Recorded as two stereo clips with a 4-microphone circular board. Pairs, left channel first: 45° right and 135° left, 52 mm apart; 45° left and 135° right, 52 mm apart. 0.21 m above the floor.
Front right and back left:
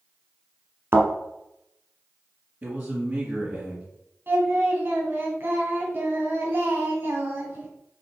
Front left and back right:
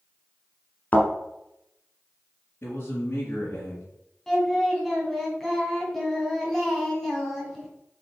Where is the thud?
100° left, 1.3 m.